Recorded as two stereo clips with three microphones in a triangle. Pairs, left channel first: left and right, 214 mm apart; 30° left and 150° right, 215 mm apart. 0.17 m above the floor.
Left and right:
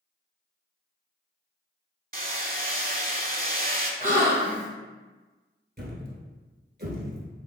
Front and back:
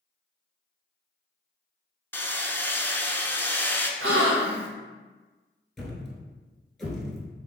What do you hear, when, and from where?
2.1 s hammering: 50° right, 0.5 m
4.0 s a gasp: 140° right, 0.7 m
5.8 s a thud: 60° right, 0.9 m